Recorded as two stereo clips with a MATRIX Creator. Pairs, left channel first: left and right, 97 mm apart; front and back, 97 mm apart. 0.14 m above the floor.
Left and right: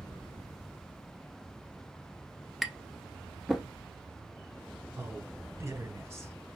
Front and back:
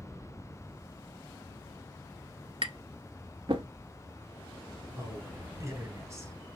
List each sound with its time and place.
2.6 s tapping: straight behind, 0.7 m
5.0 s a man speaking: 140° right, 1.4 m